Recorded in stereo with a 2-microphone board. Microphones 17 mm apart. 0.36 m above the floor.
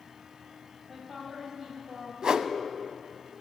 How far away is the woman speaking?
About 2.5 m.